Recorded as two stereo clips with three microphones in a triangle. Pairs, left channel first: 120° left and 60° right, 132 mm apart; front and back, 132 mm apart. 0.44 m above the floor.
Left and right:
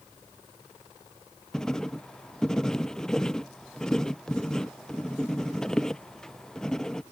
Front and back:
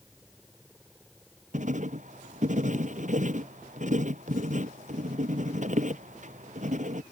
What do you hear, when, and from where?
1.5 s writing: 155° right